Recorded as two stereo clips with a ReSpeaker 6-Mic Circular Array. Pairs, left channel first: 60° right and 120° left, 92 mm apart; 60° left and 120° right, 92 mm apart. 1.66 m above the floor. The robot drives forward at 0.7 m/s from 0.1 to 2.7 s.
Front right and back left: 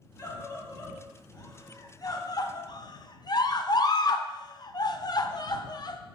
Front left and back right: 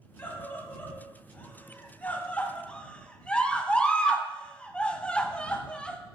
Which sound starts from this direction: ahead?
A scream, at 0.2 s.